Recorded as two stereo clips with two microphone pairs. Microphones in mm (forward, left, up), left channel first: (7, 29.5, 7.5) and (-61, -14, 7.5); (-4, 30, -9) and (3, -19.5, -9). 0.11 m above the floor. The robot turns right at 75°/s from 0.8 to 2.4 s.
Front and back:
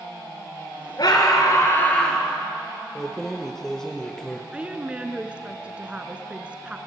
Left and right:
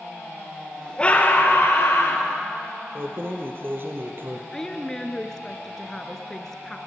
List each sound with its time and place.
1.0 s a scream: 30° left, 2.5 m; by 2.2 s 125° left, 2.5 m
3.0 s keys jangling: 50° right, 2 m
4.5 s a woman speaking: 160° left, 1.8 m